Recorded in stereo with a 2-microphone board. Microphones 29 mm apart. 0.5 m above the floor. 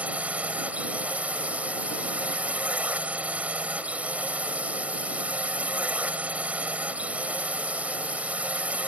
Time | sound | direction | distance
0.0 | a drone | 55° right (ahead or behind) | ?